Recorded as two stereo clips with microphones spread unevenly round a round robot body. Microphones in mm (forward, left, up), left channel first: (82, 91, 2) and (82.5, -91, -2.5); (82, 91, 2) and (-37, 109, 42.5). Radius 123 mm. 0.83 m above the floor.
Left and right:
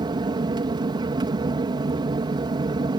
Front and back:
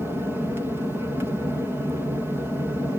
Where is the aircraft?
95° right.